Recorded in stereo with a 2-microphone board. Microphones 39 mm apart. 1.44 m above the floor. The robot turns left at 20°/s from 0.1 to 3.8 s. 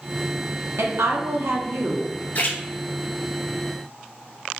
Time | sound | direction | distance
0.8 | a woman speaking | 80° right | 0.8 m
2.4 | a splash | 45° left (ahead or behind) | 0.8 m